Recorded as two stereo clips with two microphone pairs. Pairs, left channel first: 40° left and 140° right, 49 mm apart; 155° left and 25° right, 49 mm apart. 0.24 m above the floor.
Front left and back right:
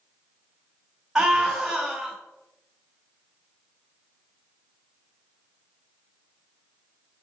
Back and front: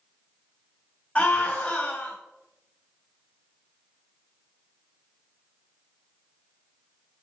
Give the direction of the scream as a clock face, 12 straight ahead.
7 o'clock.